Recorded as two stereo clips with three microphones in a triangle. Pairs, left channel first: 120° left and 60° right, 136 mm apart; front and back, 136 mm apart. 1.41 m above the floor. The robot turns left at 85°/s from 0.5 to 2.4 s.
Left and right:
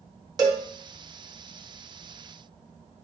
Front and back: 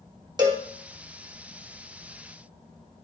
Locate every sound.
0.4 s a cowbell: 120° right, 1.5 m; by 0.7 s 135° right, 1.5 m